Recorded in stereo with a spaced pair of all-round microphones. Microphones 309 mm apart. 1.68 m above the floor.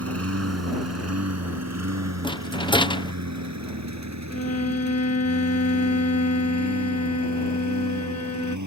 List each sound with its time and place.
0.0 s a lawn mower: 50° right (ahead or behind); by 8.7 s 70° right (ahead or behind)
2.2 s a rattle: 15° left (ahead or behind)
4.3 s a violin: 55° left (ahead or behind)